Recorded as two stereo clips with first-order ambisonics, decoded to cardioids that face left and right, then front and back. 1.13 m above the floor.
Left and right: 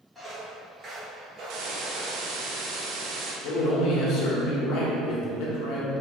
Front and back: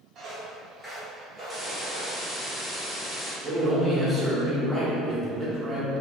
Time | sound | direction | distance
0.1 | footsteps | 175° right | 1.2 m
1.5 | a hiss | 85° right | 0.8 m
3.4 | a man speaking | 100° left | 1.0 m